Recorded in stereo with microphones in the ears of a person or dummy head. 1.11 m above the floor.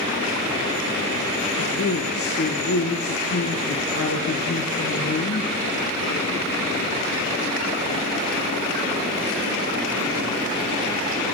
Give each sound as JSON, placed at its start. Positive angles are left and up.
{"t": 1.6, "sound": "a man speaking", "side_deg": 45, "distance_m": 0.7}